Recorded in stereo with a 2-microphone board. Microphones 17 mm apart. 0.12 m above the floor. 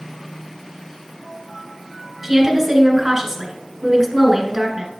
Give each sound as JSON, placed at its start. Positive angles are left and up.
{"t": 2.2, "sound": "a woman speaking", "side_deg": -20, "distance_m": 1.5}